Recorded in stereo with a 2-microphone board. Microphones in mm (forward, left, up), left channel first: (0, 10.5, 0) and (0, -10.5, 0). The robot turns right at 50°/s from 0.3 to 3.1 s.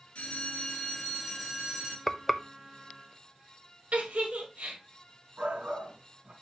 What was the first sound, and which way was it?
A bell, 120° left.